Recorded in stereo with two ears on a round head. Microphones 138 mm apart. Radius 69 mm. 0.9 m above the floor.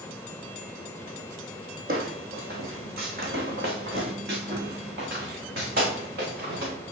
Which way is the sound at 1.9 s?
65° right (ahead or behind).